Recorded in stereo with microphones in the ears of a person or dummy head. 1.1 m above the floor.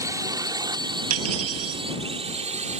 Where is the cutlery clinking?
90° right.